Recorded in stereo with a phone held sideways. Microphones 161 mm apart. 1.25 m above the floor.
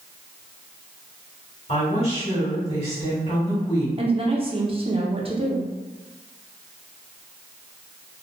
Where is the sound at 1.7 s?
40° left (ahead or behind), 1.8 m.